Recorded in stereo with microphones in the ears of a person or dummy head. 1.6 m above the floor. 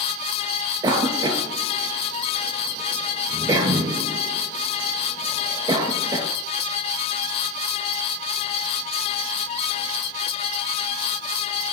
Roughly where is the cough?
Centre.